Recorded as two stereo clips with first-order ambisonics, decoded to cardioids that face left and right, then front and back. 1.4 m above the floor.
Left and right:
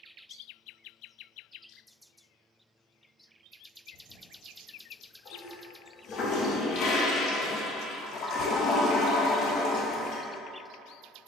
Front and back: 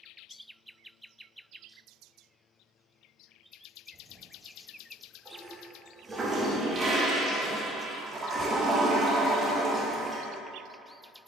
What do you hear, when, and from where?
3.9 s a toilet flushing: 115° left, 0.5 m